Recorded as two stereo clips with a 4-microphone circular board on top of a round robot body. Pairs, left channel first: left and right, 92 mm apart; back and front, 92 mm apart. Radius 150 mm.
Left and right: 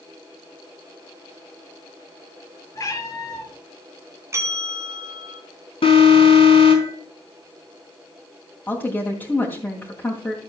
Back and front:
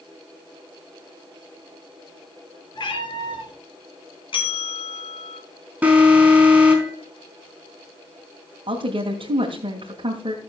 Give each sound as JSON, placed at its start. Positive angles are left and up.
{"t": 2.8, "sound": "a cat meowing", "azimuth_deg": 140, "distance_m": 3.5}
{"t": 4.3, "sound": "a bell", "azimuth_deg": -150, "distance_m": 2.0}
{"t": 5.8, "sound": "an alarm", "azimuth_deg": 75, "distance_m": 4.5}
{"t": 8.7, "sound": "a woman speaking", "azimuth_deg": 20, "distance_m": 2.5}